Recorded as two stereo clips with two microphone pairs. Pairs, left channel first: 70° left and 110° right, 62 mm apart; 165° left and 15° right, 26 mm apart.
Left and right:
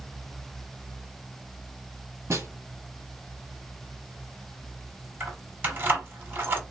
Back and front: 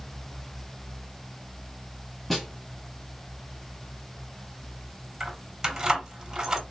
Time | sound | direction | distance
2.3 | a snare drum | 120° right | 1.2 m
5.2 | keys jangling | 70° right | 1.0 m